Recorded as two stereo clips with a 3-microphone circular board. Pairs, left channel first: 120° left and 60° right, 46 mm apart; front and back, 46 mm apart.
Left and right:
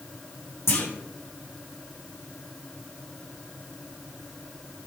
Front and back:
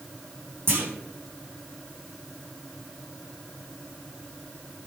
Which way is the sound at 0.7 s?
145° left.